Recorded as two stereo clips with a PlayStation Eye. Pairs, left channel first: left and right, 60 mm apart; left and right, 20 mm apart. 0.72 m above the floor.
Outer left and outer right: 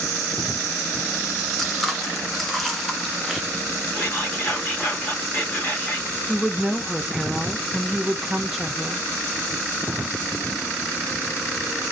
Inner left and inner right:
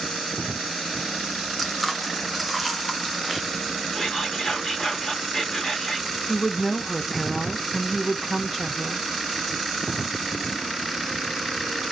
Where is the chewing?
Centre (ahead or behind), 0.6 m.